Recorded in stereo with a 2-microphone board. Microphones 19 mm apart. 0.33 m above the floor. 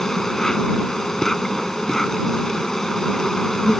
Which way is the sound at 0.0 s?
25° left (ahead or behind).